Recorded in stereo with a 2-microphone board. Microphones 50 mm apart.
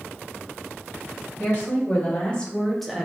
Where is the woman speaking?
35° left (ahead or behind), 1.1 m; by 3.1 s 10° right (ahead or behind), 0.5 m.